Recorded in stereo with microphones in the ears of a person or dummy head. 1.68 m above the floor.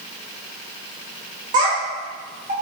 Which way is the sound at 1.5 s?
25° right (ahead or behind).